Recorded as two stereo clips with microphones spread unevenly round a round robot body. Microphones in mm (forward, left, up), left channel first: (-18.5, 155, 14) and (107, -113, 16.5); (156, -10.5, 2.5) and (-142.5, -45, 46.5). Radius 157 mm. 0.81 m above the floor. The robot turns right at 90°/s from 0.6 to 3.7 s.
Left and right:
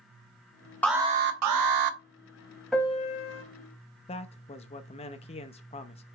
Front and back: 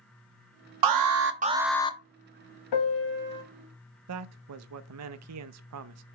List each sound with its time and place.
0.8 s an alarm: 160° right, 1.0 m; by 2.0 s 55° right, 1.0 m
2.7 s a piano: 25° left, 1.4 m; by 3.4 s 90° left, 1.4 m
4.1 s a man speaking: 175° left, 0.7 m